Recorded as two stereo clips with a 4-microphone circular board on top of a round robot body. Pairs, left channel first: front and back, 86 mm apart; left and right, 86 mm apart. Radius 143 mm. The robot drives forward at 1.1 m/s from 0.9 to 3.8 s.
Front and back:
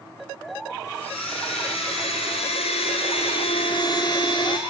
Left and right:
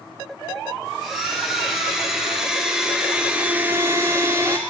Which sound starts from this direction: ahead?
A blender, at 1.0 s.